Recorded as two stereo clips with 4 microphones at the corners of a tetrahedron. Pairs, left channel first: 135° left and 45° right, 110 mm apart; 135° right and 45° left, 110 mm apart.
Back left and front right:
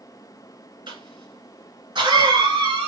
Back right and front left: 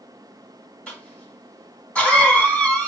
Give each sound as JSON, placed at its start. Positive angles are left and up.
{"t": 0.9, "sound": "a cough", "azimuth_deg": -60, "distance_m": 1.9}